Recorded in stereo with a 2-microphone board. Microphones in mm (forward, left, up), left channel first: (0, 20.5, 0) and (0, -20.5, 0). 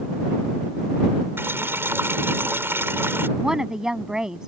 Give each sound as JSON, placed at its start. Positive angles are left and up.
{"t": 1.4, "sound": "boiling", "side_deg": -75}
{"t": 3.4, "sound": "a woman speaking", "side_deg": -15}